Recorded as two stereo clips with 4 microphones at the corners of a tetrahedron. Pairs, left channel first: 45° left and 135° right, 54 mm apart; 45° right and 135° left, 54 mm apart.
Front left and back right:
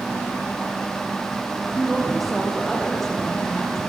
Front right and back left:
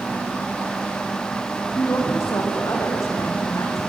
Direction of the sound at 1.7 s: 45° right.